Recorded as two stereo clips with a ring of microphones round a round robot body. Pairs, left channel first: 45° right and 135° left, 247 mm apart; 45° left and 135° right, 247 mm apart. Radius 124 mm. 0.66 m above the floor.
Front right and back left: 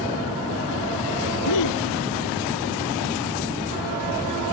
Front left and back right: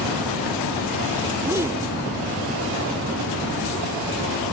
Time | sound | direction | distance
1.4 | a gasp | 55° right | ?